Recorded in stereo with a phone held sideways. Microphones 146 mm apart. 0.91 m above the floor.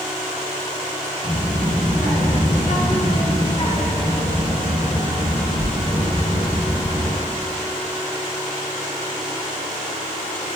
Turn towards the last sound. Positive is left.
turn(degrees=50)  # may be behind; listen again after turning